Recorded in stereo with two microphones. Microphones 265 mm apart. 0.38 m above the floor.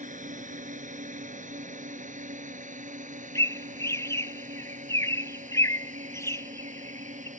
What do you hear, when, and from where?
0.0 s a drone: 30° right (ahead or behind)
3.4 s a bird: 10° left (ahead or behind)